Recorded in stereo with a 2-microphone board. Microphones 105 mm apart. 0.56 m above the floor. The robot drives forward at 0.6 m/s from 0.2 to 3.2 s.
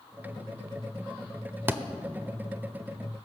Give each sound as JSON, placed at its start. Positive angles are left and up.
{"t": 1.7, "sound": "a thud", "side_deg": -20, "distance_m": 0.7}